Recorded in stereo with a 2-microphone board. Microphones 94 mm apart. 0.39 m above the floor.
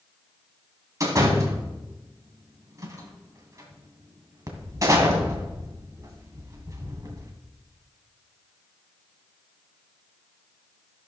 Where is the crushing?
No crushing in this recording.